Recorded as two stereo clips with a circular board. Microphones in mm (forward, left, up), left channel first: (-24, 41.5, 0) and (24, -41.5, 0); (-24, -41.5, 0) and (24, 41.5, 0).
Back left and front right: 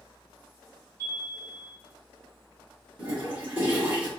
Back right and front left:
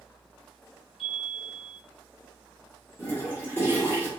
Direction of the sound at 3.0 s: 90° right.